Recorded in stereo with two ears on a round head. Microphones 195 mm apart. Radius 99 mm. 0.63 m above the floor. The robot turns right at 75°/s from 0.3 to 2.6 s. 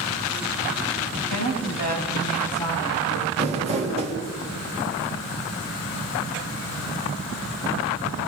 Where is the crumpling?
25° right (ahead or behind), 3.5 m.